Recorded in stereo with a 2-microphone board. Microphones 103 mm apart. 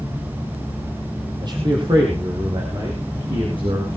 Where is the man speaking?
45° right (ahead or behind), 4.5 m; by 3.9 s 60° right (ahead or behind), 7.5 m.